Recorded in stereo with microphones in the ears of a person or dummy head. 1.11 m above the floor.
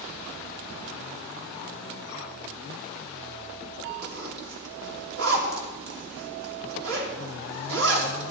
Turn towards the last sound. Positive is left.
turn(degrees=-70)  # may be behind; listen again after turning